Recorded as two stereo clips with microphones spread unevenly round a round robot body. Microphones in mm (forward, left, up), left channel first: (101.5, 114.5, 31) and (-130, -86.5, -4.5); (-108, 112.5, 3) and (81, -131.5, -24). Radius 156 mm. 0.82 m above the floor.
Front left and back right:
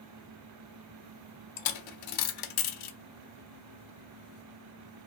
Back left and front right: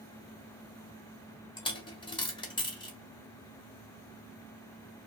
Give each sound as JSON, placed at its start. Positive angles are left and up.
{"t": 1.6, "sound": "a dropped coin", "azimuth_deg": 55, "distance_m": 0.6}